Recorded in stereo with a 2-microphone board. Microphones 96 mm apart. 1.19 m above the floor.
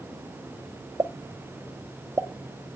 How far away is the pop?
About 0.6 m.